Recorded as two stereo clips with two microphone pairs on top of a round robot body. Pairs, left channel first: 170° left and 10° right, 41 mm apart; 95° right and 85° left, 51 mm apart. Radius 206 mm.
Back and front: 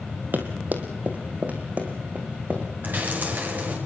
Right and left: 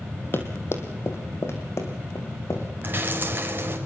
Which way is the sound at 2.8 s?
40° left.